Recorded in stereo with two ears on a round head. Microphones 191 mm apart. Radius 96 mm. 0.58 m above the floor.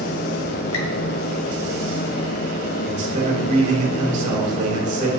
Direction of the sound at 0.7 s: 65° left (ahead or behind).